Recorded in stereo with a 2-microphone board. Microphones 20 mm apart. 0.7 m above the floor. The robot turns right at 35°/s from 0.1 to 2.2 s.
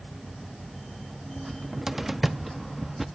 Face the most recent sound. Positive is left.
turn(degrees=-10)  # may be behind; listen again after turning